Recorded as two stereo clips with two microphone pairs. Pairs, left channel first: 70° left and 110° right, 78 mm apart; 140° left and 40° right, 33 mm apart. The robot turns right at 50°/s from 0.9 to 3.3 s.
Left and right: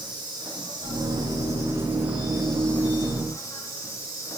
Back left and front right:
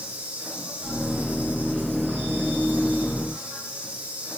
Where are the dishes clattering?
No dishes clattering in this recording.